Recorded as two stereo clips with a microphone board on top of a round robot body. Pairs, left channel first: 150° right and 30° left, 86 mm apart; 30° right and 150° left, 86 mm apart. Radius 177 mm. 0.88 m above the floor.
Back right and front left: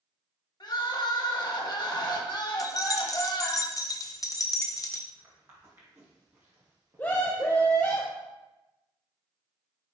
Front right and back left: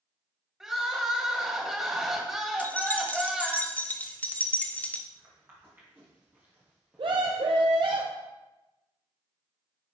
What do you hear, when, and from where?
0.6 s crying: 125° right, 1.2 m
2.6 s keys jangling: 100° right, 0.7 m
5.1 s footsteps: 90° left, 2 m; by 7.8 s 60° left, 1.0 m
7.0 s a scream: 140° left, 0.7 m